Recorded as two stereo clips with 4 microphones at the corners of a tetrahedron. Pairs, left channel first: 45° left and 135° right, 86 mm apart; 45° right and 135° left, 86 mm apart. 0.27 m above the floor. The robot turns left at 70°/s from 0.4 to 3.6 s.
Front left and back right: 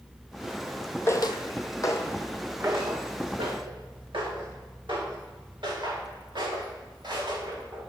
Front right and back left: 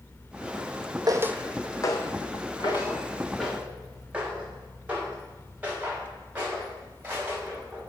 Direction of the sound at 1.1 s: 100° left.